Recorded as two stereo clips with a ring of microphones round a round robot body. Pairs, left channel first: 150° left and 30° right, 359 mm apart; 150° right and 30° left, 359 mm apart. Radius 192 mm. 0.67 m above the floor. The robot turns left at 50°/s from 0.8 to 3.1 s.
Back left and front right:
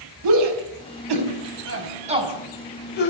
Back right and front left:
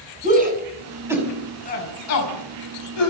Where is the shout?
40° right, 5.5 m; by 3.1 s 155° right, 5.5 m.